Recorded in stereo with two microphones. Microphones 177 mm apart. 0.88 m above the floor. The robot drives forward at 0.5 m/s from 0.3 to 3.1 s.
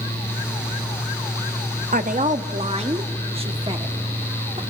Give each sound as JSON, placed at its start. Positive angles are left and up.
{"t": 1.9, "sound": "a woman speaking", "side_deg": -55, "distance_m": 0.9}